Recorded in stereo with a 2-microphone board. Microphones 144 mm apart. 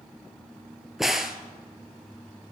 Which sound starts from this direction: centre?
A crack, at 1.0 s.